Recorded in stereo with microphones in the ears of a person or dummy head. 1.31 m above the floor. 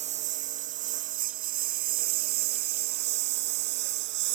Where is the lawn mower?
35° right (ahead or behind); by 4.3 s 55° right (ahead or behind).